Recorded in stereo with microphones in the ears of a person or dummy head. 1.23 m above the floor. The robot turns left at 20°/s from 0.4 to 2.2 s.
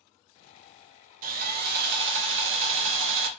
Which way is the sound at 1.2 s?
50° right (ahead or behind).